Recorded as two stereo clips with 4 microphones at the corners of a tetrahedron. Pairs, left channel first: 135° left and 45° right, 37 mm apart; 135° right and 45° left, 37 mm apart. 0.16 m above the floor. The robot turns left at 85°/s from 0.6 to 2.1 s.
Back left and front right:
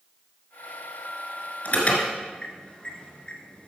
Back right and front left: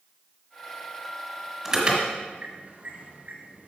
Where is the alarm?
115° left, 1.9 m; by 3.7 s 80° left, 1.9 m.